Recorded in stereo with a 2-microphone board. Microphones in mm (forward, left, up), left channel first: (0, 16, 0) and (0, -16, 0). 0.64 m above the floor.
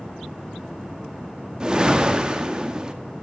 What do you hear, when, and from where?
1.6 s a whoosh: 30° right (ahead or behind), 1.3 m